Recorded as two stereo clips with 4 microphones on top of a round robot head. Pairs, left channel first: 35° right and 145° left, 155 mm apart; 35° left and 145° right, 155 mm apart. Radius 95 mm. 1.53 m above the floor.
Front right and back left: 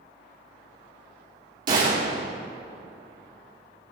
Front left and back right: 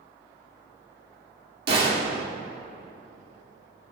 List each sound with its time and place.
1.7 s a gunshot: 175° right, 3 m